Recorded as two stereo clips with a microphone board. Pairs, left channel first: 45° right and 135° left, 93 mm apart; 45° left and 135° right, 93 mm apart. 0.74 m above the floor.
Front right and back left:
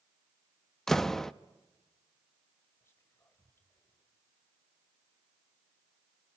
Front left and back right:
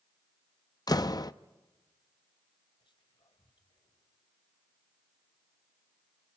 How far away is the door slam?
About 0.6 m.